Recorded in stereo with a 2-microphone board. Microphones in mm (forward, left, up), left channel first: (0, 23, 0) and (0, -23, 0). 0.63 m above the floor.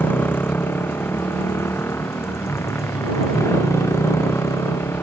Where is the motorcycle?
50° left (ahead or behind); by 5.0 s 85° left.